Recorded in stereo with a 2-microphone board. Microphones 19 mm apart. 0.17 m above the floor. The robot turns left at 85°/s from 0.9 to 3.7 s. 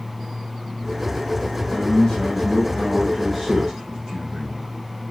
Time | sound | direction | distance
1.7 | a man speaking | 140° left | 2 m